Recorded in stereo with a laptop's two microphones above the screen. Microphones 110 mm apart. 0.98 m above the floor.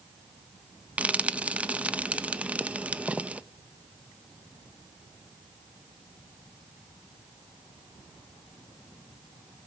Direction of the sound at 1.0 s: 10° right (ahead or behind).